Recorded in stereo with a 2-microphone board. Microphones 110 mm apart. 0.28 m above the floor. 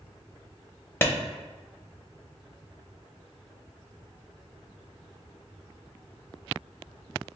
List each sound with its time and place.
1.0 s a clap: 20° left (ahead or behind), 0.7 m